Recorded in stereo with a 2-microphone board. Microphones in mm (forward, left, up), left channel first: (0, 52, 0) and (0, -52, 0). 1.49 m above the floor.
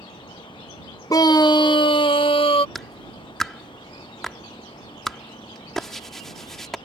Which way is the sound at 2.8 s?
5° left (ahead or behind).